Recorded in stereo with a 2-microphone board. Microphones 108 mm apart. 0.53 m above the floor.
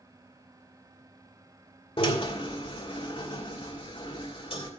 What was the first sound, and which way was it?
A drill, 55° left (ahead or behind).